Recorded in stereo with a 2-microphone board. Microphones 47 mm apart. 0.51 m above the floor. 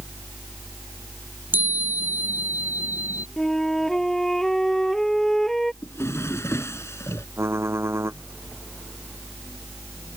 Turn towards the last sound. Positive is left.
turn(degrees=-70)  # may be behind; listen again after turning